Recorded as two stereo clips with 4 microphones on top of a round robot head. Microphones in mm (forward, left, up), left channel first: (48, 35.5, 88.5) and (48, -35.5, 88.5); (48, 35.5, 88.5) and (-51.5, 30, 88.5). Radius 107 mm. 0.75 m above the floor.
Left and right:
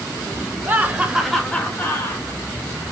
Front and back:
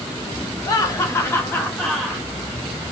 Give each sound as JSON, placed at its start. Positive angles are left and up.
{"t": 0.7, "sound": "laughter", "azimuth_deg": -40, "distance_m": 1.4}